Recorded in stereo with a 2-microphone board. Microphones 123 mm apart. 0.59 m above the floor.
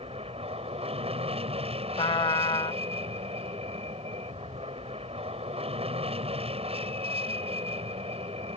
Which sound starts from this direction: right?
An aircraft, at 0.0 s.